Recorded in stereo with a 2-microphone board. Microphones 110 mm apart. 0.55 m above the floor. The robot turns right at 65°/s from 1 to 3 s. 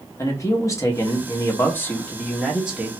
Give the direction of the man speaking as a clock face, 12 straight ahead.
9 o'clock.